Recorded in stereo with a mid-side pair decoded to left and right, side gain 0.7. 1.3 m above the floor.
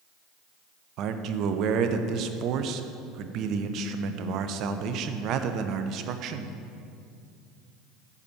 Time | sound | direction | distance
1.0 | a man speaking | 55° right | 0.7 m